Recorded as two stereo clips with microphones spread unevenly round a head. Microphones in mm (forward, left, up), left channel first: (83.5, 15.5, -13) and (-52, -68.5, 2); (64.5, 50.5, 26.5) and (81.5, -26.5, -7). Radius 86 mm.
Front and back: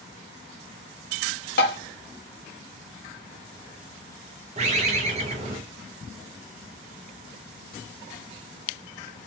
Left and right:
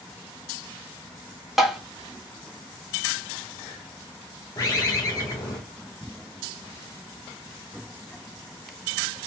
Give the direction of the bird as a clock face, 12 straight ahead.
6 o'clock.